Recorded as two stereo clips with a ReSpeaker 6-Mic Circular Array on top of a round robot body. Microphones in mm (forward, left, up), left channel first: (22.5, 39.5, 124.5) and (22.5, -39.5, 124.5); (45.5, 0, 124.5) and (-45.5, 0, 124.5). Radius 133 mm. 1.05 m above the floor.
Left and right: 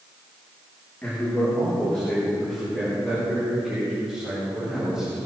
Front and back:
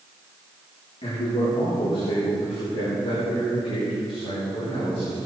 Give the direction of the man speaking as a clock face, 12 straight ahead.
11 o'clock.